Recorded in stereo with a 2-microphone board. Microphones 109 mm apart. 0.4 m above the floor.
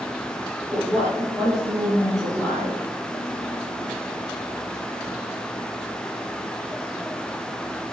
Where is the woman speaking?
40° right (ahead or behind), 5.5 m; by 2.8 s 35° right (ahead or behind), 4.5 m.